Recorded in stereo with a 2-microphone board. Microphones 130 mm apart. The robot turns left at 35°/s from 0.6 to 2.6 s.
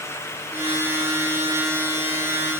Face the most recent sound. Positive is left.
No sound to turn to.